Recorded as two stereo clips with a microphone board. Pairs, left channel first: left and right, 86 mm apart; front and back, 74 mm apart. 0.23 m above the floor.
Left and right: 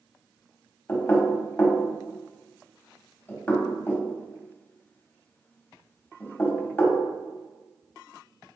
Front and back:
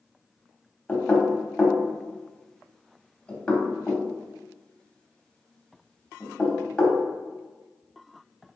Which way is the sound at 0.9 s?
55° left.